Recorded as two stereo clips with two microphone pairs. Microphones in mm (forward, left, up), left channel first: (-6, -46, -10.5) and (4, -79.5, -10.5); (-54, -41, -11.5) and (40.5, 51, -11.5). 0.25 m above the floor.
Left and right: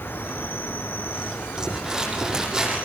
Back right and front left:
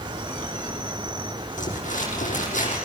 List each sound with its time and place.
0.0 s an insect: 100° left, 1.8 m
1.6 s crumpling: 140° right, 7.5 m